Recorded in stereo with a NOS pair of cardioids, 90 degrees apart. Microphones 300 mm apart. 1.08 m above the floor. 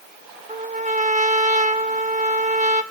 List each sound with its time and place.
0.5 s a trumpet: 25° right, 1.7 m